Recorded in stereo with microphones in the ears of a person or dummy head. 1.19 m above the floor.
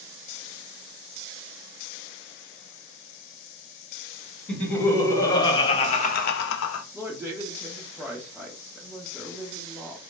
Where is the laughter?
10° left (ahead or behind), 1.3 m; by 6.8 s 80° left, 0.5 m.